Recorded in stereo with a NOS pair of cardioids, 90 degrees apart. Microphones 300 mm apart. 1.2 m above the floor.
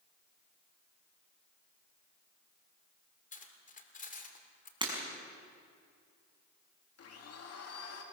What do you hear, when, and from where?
3.3 s cutlery clinking: 25° left, 2.5 m
4.8 s breaking glass: 15° right, 6 m
7.0 s a blender: 55° left, 2.5 m